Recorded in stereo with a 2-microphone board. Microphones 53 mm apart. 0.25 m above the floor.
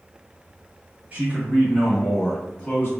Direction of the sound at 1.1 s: 35° right (ahead or behind).